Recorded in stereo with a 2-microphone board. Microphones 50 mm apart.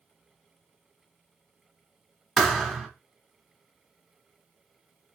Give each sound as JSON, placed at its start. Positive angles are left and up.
{"t": 2.4, "sound": "a thud", "side_deg": 10, "distance_m": 1.2}